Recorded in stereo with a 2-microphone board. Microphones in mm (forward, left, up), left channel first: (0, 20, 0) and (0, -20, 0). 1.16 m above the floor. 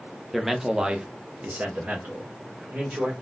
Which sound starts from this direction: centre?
A man speaking, at 0.3 s.